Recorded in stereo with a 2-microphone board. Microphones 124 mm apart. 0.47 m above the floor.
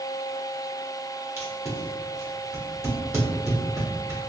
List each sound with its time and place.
1.4 s tape being pulled: 20° right (ahead or behind), 1.2 m